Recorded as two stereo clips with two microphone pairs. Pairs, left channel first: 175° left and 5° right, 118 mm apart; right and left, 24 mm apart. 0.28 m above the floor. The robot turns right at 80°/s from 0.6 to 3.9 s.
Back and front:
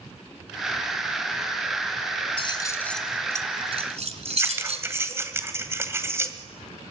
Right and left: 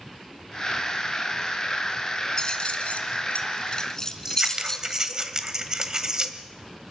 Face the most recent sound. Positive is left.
turn(degrees=50)